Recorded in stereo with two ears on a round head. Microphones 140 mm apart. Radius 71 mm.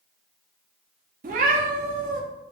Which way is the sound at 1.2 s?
60° right (ahead or behind).